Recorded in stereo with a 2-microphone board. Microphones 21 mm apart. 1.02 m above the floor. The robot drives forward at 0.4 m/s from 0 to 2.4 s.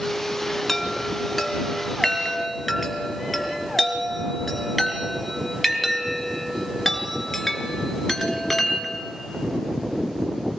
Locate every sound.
0.7 s a chime: 10° left (ahead or behind), 1.6 m; by 9.0 s 5° left (ahead or behind), 2 m